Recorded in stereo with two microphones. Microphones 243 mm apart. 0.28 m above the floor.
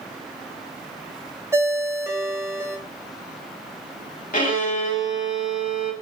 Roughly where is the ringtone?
Centre.